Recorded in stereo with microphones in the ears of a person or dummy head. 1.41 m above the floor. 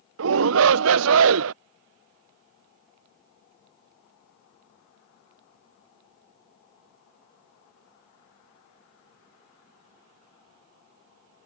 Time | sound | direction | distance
0.2 | a shout | 70° right (ahead or behind) | ?